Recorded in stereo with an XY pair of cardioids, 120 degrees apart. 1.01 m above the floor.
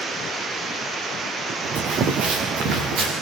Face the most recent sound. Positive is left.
turn(degrees=-65)